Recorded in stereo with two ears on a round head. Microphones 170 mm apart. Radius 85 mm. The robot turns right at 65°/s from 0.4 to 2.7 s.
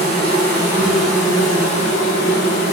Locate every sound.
0.0 s an insect: 35° right, 1.3 m; by 2.7 s 110° left, 1.3 m